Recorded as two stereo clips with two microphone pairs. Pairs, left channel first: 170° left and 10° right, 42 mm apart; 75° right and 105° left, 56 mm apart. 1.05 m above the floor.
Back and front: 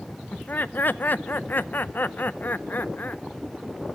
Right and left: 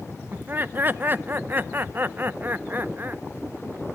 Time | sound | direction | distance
0.3 | laughter | 150° left | 0.6 m